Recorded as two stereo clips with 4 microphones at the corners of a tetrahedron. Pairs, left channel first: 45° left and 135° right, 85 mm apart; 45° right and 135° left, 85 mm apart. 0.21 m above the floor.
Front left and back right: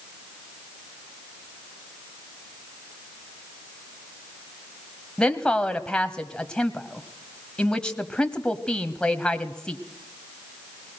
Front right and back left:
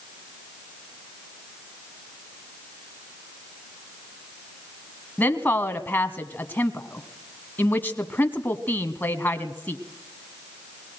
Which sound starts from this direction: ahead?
A woman speaking, at 5.2 s.